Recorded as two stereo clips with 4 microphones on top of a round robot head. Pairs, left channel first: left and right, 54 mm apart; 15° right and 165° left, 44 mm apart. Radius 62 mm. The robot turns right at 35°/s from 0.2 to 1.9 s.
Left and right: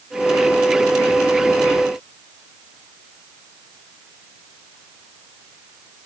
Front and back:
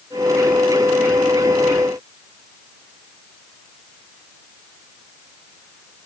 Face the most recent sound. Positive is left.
No sound to turn to.